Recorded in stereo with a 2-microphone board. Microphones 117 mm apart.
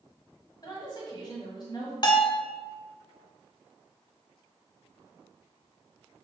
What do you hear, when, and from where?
0.6 s a woman speaking: 40° left (ahead or behind), 1.4 m
2.0 s a bell: 45° left (ahead or behind), 0.7 m